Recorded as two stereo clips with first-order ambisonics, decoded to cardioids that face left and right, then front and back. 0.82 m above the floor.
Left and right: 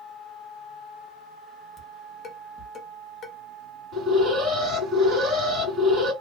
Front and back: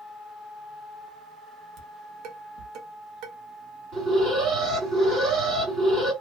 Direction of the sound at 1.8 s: 150° left.